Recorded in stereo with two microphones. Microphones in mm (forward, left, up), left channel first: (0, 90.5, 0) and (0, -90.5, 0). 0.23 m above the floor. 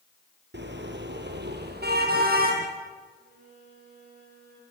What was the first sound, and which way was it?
A car horn, 80° right.